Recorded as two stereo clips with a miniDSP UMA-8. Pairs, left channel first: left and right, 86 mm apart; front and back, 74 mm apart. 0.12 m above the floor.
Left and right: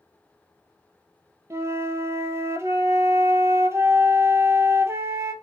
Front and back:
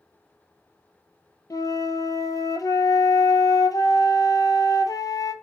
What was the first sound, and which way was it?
A flute, 35° right.